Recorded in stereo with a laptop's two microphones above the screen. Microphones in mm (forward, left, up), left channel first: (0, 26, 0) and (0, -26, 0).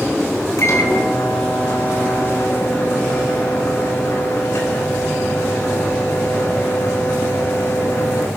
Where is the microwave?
60° left (ahead or behind), 4 m.